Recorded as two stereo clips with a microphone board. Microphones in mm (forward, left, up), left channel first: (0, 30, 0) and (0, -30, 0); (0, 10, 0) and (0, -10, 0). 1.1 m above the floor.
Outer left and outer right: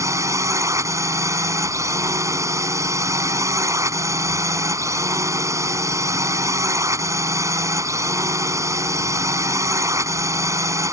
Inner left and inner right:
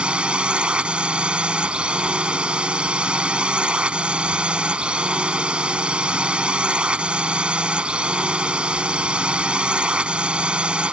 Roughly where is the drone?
Right.